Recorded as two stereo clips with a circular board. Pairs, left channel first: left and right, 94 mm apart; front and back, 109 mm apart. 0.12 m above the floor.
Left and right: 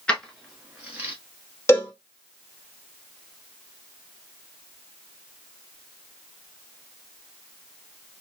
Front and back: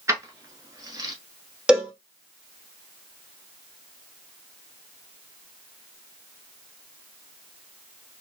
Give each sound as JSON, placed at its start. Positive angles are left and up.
{"t": 0.1, "sound": "keys jangling", "azimuth_deg": 160, "distance_m": 1.0}
{"t": 1.7, "sound": "a cowbell", "azimuth_deg": 110, "distance_m": 1.1}